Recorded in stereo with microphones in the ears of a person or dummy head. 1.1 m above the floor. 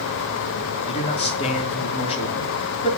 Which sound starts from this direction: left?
A man speaking, at 0.9 s.